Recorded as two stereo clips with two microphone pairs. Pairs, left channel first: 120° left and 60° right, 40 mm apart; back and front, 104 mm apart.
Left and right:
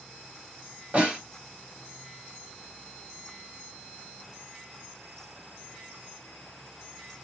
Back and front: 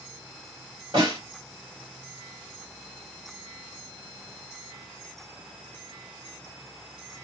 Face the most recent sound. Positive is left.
turn(degrees=-20)